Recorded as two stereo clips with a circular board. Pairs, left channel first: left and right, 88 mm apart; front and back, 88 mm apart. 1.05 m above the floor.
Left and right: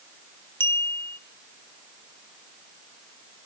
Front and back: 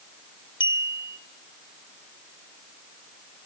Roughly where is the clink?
Ahead left.